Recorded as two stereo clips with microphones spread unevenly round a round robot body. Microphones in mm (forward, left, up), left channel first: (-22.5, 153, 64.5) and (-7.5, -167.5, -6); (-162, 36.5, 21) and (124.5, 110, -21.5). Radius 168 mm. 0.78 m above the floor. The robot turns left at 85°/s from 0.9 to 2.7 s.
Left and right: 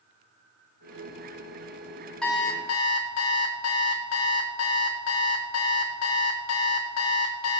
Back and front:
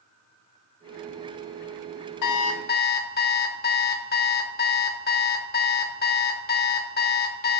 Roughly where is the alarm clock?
Behind.